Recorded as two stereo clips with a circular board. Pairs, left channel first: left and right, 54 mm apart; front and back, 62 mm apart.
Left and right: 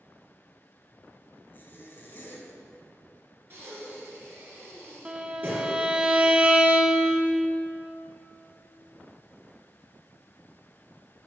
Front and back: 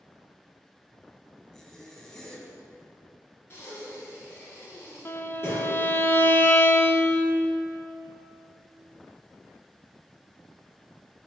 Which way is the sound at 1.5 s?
80° left.